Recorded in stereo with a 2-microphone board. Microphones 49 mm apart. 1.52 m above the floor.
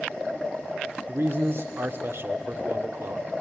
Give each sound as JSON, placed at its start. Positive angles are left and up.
{"t": 1.1, "sound": "a man speaking", "side_deg": -55, "distance_m": 1.2}